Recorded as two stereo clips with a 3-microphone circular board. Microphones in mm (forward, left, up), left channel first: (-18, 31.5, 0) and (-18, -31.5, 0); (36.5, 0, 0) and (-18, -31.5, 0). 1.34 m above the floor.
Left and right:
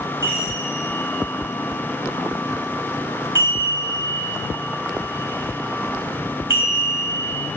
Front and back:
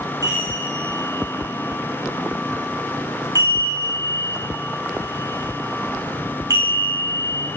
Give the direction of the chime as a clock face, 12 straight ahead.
4 o'clock.